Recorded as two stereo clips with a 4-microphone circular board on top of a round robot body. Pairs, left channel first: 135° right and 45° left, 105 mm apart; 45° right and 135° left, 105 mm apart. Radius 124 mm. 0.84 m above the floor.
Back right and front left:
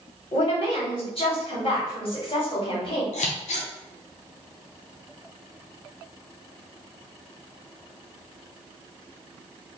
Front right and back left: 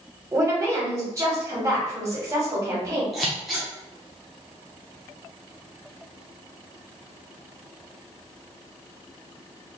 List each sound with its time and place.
0.3 s a woman speaking: 160° right, 2 m
3.1 s scissors: 135° right, 0.6 m